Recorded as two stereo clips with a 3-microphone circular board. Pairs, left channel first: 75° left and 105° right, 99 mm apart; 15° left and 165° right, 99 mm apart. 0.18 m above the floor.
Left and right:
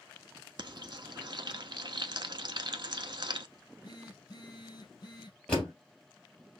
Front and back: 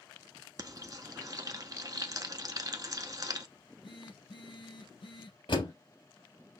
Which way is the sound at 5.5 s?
Straight ahead.